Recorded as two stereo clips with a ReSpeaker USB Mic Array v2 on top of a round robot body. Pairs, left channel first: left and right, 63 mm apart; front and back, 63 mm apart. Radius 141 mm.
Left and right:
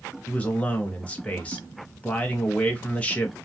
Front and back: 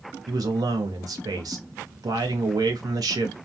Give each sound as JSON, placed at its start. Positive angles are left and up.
{"t": 0.3, "sound": "a man speaking", "azimuth_deg": 160, "distance_m": 0.7}